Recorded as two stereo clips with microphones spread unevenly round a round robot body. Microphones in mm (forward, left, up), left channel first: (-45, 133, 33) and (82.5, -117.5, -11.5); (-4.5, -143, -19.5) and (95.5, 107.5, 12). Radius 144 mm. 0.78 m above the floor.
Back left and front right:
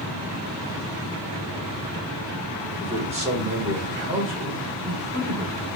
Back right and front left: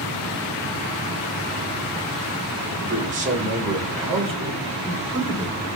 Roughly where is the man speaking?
Ahead.